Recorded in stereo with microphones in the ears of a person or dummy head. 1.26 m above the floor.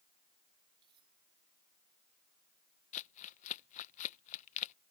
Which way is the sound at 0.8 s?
25° right (ahead or behind).